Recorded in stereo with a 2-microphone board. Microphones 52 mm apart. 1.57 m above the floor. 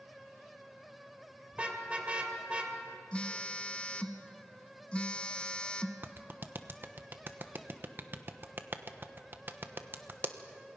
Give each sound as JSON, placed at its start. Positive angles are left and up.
{"t": 1.5, "sound": "a car horn", "side_deg": -25, "distance_m": 2.5}
{"t": 3.1, "sound": "a phone buzzing", "side_deg": 20, "distance_m": 0.9}
{"t": 6.0, "sound": "a clap", "side_deg": -40, "distance_m": 1.0}